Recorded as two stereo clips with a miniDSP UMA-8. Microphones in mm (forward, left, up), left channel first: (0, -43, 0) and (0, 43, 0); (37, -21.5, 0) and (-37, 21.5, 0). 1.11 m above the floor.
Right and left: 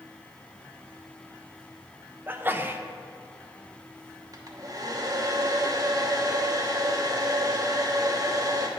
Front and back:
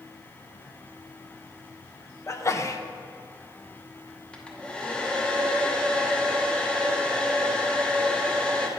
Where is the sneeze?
25° left, 0.7 m.